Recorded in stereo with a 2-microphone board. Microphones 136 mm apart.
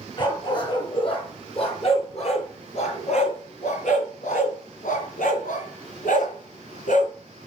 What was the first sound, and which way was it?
A dog barking, 35° left (ahead or behind).